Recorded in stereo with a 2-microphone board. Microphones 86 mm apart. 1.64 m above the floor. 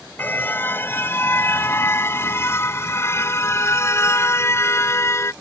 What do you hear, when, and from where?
0.2 s a car horn: 25° left (ahead or behind); by 5.3 s 30° left (ahead or behind)